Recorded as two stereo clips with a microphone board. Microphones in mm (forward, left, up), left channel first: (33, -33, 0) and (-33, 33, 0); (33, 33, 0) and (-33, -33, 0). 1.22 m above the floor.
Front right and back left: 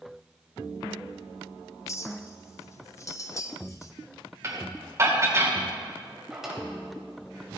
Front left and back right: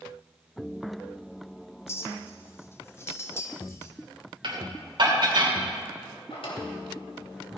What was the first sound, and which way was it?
A clink, 5° right.